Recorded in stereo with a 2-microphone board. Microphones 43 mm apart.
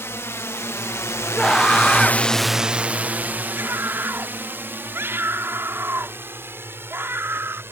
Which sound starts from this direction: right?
A scream, at 3.5 s.